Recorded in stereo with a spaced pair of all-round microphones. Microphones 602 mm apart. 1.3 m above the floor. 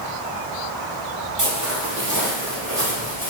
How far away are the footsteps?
About 1.8 m.